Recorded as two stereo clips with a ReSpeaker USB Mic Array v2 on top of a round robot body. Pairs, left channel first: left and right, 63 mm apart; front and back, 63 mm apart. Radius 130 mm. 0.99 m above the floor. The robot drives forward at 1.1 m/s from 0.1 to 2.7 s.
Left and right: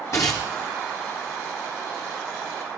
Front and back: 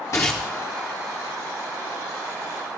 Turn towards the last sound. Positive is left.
turn(degrees=175)